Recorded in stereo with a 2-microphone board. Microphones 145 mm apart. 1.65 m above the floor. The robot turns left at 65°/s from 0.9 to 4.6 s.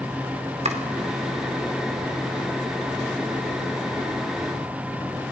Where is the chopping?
45° right (ahead or behind), 2.5 m.